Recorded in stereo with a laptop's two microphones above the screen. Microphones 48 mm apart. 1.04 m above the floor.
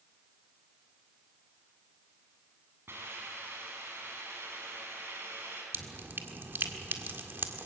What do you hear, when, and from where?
2.9 s a hiss: 55° right (ahead or behind), 7 m
5.7 s dripping: 55° right (ahead or behind), 1.7 m